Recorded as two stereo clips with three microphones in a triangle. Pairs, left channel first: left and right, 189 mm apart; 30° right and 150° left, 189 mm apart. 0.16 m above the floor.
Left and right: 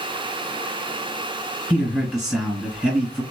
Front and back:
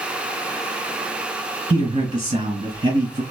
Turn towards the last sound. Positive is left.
turn(degrees=-170)